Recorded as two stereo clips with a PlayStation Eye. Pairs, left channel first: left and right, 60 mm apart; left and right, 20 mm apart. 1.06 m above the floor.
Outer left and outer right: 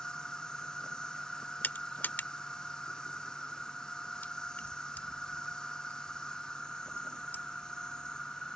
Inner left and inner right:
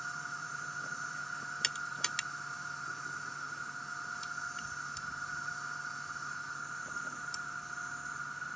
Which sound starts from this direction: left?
Crushing, at 1.6 s.